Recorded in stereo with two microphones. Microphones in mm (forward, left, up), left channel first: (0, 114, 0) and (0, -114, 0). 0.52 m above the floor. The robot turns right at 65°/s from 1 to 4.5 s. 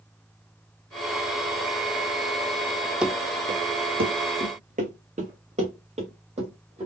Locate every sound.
3.0 s running footsteps: 5° right (ahead or behind), 0.7 m; by 6.9 s 25° right (ahead or behind), 3 m